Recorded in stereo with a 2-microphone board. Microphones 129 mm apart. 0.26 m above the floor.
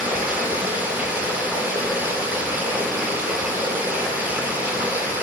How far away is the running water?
About 1.6 m.